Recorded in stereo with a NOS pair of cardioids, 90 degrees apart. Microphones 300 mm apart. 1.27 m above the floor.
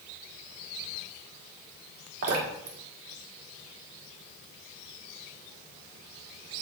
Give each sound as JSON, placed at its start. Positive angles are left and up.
{"t": 2.2, "sound": "dripping", "azimuth_deg": -55, "distance_m": 1.7}